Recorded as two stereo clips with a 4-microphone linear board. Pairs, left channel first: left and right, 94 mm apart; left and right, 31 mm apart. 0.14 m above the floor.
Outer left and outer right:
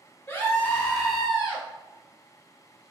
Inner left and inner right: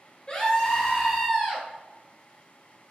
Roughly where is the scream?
Left.